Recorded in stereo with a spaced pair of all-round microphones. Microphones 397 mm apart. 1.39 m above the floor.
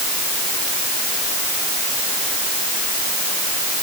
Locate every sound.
Only background noise.